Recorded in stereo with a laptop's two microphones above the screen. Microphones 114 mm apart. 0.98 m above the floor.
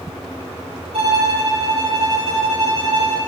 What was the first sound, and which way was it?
A violin, 60° right (ahead or behind).